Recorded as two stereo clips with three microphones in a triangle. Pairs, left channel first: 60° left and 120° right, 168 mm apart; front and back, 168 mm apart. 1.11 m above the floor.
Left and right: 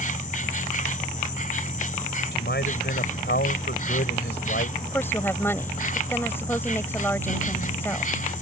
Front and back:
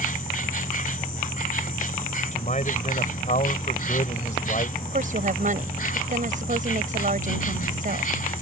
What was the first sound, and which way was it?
An insect, 30° left.